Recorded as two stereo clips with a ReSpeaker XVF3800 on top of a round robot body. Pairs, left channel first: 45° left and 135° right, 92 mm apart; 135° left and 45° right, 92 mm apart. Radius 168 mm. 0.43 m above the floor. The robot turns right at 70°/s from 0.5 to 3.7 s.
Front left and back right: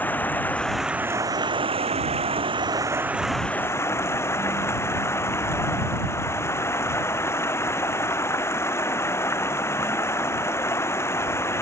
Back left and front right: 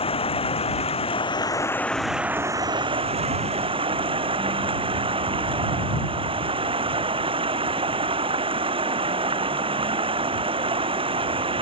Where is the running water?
115° left; by 11.6 s 20° right.